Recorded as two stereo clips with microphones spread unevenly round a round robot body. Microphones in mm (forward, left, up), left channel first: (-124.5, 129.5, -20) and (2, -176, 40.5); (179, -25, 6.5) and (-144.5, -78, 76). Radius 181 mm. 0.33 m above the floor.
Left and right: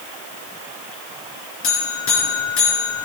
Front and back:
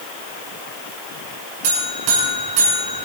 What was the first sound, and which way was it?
A buzzer, 160° left.